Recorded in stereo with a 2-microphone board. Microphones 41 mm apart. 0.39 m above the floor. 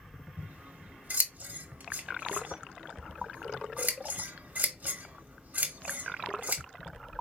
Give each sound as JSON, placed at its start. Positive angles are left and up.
{"t": 0.4, "sound": "scissors", "side_deg": -50, "distance_m": 0.7}